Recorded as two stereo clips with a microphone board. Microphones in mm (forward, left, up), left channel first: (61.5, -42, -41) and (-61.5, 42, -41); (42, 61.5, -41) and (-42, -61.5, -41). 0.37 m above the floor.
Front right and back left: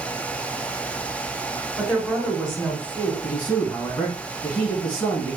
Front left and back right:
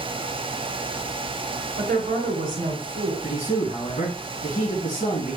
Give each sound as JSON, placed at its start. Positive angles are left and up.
{"t": 1.8, "sound": "a woman speaking", "azimuth_deg": -120, "distance_m": 1.7}
{"t": 3.2, "sound": "a man speaking", "azimuth_deg": 25, "distance_m": 3.0}